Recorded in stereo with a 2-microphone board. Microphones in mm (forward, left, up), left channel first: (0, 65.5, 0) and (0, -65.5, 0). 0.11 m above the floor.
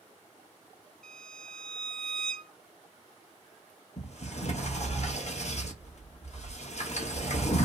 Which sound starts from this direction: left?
A sliding door, at 4.0 s.